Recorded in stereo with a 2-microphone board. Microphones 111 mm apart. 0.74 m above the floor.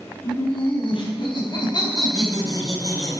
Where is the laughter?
50° left (ahead or behind), 4.5 m; by 3.2 s 30° left (ahead or behind), 3.5 m.